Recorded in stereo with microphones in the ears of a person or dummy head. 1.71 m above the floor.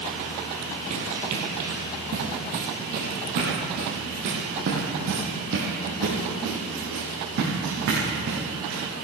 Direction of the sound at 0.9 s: 40° right (ahead or behind).